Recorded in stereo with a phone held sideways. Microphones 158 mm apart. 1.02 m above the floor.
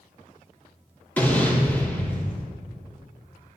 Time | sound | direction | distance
1.2 | an explosion | 10° left (ahead or behind) | 3 m